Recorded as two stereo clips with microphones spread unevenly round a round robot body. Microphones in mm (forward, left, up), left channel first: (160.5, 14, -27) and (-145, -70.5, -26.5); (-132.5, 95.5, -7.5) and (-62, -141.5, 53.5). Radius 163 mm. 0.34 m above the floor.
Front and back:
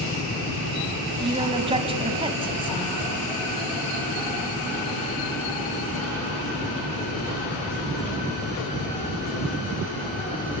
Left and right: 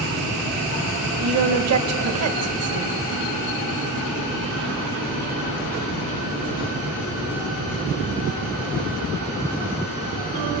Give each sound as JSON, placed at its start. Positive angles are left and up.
{"t": 1.2, "sound": "a woman speaking", "azimuth_deg": -95, "distance_m": 1.7}